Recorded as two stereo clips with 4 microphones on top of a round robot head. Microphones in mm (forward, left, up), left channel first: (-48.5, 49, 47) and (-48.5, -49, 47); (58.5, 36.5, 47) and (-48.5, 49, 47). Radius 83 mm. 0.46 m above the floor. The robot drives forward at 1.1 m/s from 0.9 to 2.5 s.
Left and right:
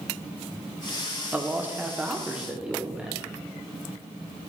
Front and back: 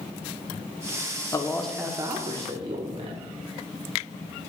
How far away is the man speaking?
About 0.8 m.